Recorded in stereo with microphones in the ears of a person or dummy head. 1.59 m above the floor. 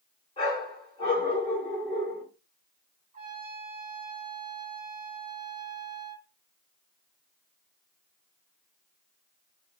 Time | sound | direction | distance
0.4 | a dog barking | 30° left (ahead or behind) | 2.5 m
3.1 | a trumpet | 35° right (ahead or behind) | 1.5 m